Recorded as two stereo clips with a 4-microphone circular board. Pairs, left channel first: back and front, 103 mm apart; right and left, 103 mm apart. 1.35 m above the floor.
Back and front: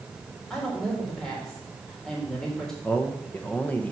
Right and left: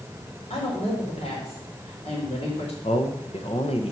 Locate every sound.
0.5 s a woman speaking: 95° right, 4 m
2.8 s a man speaking: 105° right, 1.4 m